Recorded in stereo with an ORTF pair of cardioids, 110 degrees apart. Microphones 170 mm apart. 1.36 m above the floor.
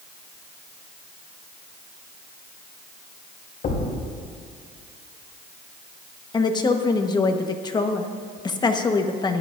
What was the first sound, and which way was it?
A thud, 60° left.